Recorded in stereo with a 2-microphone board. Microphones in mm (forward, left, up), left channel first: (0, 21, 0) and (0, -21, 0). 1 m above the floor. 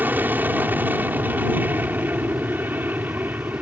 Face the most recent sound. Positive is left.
turn(degrees=-50)  # may be behind; listen again after turning